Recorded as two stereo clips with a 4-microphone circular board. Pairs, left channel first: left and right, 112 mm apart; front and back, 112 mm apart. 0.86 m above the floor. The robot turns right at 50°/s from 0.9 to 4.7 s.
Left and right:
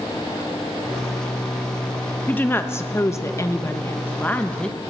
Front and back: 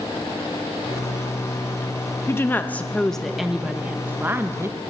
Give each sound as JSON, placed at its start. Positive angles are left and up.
{"t": 2.3, "sound": "a woman speaking", "azimuth_deg": 40, "distance_m": 0.8}